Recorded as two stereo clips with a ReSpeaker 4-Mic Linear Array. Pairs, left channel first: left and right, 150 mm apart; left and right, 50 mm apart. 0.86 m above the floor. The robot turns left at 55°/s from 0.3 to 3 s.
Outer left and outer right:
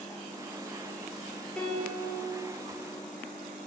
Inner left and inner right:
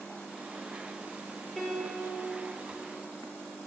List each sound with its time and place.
1.6 s a piano: 175° left, 3.5 m; by 2.2 s 140° left, 3.5 m